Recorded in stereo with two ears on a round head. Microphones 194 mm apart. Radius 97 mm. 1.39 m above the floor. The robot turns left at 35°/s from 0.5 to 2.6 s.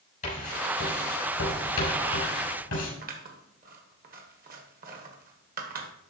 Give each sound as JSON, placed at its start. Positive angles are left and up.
{"t": 0.2, "sound": "writing", "side_deg": 40, "distance_m": 5.5}
{"t": 3.0, "sound": "scissors", "side_deg": -45, "distance_m": 1.5}